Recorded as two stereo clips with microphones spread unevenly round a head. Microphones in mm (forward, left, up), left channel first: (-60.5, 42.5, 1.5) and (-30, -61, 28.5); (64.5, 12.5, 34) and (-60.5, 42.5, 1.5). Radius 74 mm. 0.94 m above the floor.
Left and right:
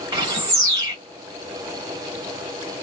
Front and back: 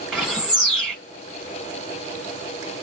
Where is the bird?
90° right, 1.1 m.